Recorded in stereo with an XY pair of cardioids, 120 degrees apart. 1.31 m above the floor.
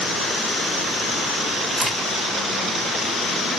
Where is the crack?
25° right, 3 m.